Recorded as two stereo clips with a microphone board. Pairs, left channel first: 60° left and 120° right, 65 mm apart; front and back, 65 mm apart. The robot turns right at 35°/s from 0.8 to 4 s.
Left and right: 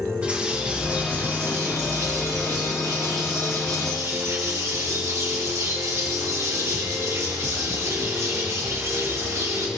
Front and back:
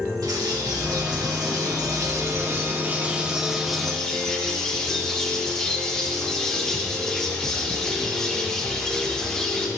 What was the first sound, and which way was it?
A bird, 170° left.